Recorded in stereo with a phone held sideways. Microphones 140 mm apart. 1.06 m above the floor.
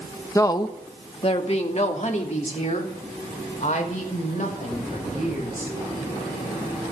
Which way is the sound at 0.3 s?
20° left (ahead or behind).